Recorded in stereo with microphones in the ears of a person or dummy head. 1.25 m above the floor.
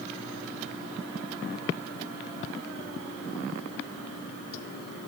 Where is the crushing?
No crushing in this recording.